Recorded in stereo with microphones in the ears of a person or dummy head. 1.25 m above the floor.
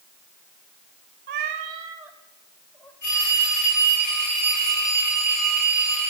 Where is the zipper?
I don't hear a zipper.